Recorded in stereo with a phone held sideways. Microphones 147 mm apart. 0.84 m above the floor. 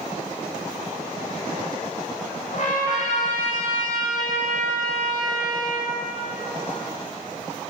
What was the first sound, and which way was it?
A trumpet, 55° left (ahead or behind).